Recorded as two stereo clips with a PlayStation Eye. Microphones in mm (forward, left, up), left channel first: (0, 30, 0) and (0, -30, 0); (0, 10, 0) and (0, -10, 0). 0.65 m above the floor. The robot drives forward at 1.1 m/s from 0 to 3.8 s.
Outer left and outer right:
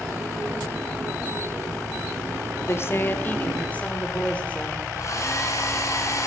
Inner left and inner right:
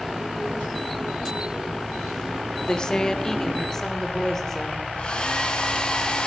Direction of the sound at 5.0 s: 60° left (ahead or behind).